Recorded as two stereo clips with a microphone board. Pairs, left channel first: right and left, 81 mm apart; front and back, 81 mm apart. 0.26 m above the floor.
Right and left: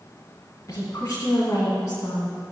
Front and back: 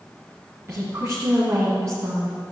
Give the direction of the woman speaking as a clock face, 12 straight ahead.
4 o'clock.